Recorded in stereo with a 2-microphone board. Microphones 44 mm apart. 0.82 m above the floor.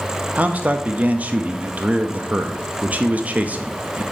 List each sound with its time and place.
0.3 s a man speaking: 35° right (ahead or behind), 0.6 m